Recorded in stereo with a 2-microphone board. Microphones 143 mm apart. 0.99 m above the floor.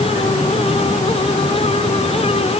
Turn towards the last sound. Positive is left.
No sound to turn to.